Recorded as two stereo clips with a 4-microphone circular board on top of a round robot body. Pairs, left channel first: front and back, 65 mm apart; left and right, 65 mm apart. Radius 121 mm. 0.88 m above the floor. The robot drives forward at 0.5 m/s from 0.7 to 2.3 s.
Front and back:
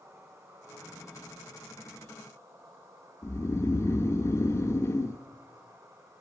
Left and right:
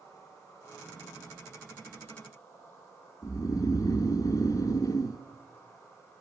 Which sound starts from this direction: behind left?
An insect, at 0.0 s.